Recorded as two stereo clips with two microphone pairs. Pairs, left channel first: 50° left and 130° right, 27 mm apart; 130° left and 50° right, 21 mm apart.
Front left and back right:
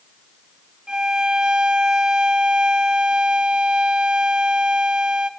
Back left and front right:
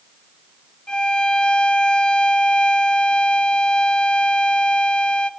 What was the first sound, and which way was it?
A violin, 175° left.